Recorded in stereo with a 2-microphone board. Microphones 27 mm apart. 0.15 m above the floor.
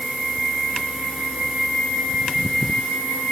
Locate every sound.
Only background noise.